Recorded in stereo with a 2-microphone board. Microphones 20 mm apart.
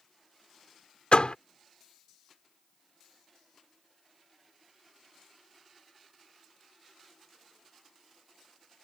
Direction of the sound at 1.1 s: 65° left (ahead or behind).